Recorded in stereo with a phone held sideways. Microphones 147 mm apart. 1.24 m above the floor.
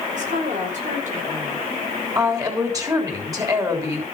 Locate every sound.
0.1 s a woman speaking: 55° right (ahead or behind), 4 m
2.1 s a woman speaking: 25° right (ahead or behind), 3.5 m